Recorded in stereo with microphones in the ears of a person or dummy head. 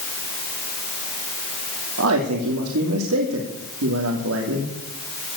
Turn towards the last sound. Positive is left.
turn(degrees=-80)